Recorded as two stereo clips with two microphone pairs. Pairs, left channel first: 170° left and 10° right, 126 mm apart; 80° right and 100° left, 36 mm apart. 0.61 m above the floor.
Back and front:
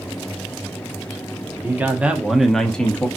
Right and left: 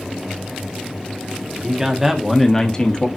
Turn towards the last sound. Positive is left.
turn(degrees=-115)